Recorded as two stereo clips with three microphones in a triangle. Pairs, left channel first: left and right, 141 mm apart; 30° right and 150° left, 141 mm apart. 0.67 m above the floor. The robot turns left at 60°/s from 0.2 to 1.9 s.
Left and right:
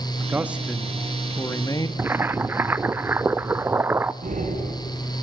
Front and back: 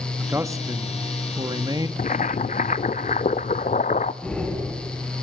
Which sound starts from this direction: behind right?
A man speaking, at 0.2 s.